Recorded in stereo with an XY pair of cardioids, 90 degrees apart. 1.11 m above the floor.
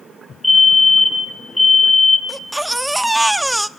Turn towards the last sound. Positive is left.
turn(degrees=-5)